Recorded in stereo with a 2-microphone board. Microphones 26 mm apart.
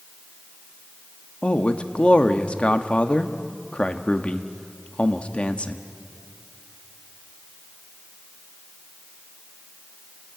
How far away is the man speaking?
About 1.2 m.